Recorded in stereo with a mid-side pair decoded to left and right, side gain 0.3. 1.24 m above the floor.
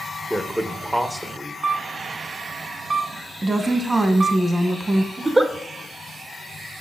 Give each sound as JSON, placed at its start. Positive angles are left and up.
{"t": 0.3, "sound": "a man speaking", "azimuth_deg": -10, "distance_m": 0.9}
{"t": 1.6, "sound": "a camera shutter", "azimuth_deg": -55, "distance_m": 1.3}
{"t": 3.4, "sound": "a woman speaking", "azimuth_deg": -35, "distance_m": 1.4}
{"t": 5.2, "sound": "a giggle", "azimuth_deg": -25, "distance_m": 1.0}